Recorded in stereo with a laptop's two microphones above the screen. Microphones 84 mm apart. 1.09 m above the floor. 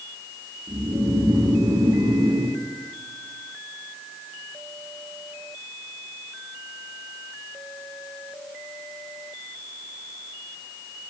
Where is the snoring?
50° right (ahead or behind), 7 m.